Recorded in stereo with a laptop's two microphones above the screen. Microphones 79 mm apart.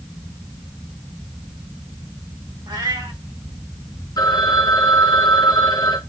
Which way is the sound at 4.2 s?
55° left (ahead or behind).